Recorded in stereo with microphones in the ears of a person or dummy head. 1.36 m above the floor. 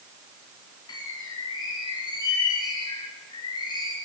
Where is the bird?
30° left (ahead or behind), 3.5 m.